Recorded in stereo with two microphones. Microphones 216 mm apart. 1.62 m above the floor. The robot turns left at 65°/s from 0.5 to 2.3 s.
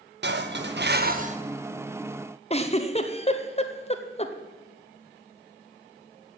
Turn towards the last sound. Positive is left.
turn(degrees=30)  # may be behind; listen again after turning